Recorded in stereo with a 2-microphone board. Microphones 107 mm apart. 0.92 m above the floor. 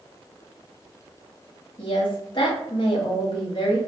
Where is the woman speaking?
50° left (ahead or behind), 1.4 m.